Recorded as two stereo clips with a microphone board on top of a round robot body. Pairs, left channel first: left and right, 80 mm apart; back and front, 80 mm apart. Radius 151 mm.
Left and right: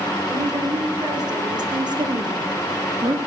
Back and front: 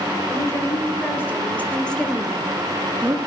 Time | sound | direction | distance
0.3 | a woman speaking | 125° right | 4.5 m